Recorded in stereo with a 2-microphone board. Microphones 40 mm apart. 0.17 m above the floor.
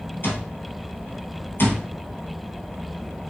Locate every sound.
0.2 s an alarm clock: 65° left (ahead or behind), 2.5 m